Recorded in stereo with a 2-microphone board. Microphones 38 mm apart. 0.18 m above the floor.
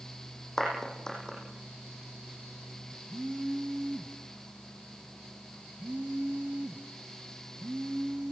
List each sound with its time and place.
0.6 s a clap: 15° left (ahead or behind), 9.5 m
3.1 s a phone buzzing: 65° right (ahead or behind), 1.4 m